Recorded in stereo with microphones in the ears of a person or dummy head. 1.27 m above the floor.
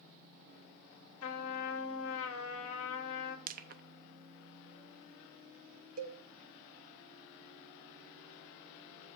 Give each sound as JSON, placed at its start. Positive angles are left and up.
{"t": 1.2, "sound": "a trumpet", "side_deg": 75, "distance_m": 1.6}
{"t": 3.5, "sound": "crushing", "side_deg": -45, "distance_m": 0.7}
{"t": 6.0, "sound": "a cowbell", "side_deg": -45, "distance_m": 1.1}